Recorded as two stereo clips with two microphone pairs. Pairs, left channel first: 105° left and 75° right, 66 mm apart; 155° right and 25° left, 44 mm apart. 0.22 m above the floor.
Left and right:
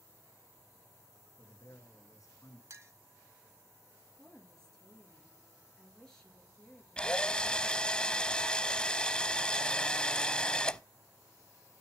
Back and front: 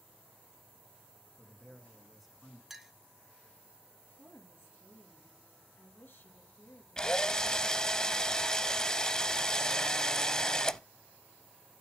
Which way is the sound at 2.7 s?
55° right.